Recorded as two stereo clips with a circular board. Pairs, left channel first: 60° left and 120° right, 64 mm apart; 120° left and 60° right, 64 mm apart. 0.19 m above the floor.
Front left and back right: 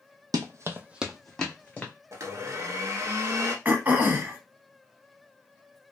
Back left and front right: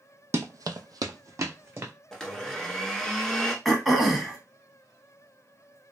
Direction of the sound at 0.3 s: 105° right.